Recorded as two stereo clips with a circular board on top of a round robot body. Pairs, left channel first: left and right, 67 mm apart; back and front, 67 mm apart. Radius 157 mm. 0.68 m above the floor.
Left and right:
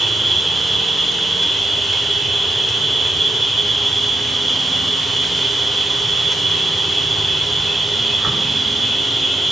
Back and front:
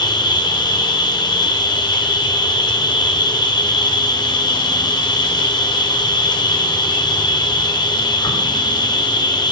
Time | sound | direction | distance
0.0 | an insect | straight behind | 1.5 m